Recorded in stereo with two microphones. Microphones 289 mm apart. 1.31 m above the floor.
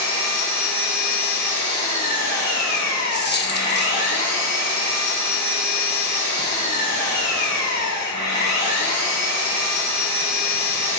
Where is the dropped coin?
40° left (ahead or behind), 0.8 m.